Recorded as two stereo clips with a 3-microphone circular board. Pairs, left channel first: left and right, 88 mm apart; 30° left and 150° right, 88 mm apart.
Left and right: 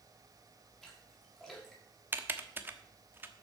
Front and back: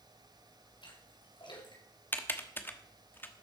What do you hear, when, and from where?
0.8 s a splash: 5° left, 5.5 m
2.1 s typing on a keyboard: 30° right, 1.2 m